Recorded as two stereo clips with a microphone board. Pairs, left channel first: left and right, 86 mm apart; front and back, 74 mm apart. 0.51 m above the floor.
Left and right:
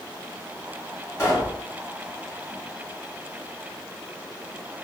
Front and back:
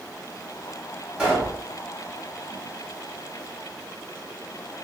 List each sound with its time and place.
1.2 s a pop: 115° left, 1.5 m